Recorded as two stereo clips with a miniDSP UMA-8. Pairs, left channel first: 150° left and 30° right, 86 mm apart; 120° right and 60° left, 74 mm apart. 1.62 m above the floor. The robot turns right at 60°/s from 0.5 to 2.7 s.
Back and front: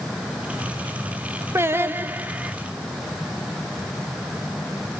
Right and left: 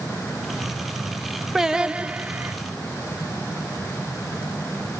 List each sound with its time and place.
1.6 s singing: 20° right, 0.6 m; by 2.5 s 40° left, 0.6 m